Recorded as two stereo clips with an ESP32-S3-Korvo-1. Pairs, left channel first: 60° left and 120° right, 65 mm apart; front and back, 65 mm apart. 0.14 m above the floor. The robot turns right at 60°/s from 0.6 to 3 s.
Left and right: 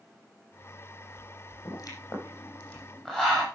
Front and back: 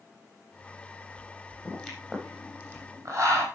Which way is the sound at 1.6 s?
70° left.